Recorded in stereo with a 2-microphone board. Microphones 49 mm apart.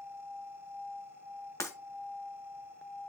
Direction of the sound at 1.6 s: 80° left.